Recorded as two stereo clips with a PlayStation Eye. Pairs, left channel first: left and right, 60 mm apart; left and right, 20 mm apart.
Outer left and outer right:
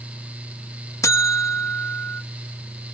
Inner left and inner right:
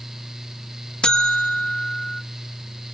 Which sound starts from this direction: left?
A buzzer, at 1.0 s.